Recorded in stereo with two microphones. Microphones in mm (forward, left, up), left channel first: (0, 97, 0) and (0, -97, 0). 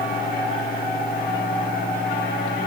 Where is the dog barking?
No dog barking in this recording.